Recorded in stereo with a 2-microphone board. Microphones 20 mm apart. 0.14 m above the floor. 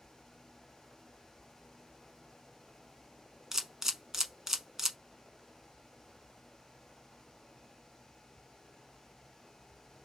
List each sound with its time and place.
3.5 s a camera shutter: 25° right (ahead or behind), 0.7 m